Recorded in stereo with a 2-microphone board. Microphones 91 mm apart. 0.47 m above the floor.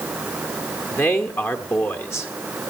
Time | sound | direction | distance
0.9 | a man speaking | 30° left (ahead or behind) | 1.4 m